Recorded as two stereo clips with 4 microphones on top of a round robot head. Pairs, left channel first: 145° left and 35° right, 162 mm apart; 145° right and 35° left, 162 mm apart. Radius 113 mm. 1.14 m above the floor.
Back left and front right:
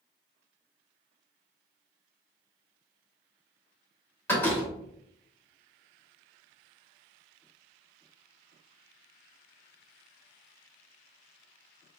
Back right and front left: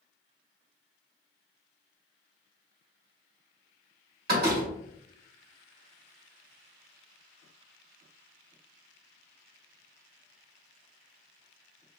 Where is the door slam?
65° left, 2.5 m.